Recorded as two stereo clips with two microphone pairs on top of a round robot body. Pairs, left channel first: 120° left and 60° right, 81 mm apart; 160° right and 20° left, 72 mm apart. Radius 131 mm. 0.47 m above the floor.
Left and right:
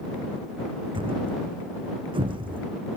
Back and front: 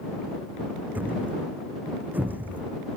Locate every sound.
0.9 s a thud: 45° right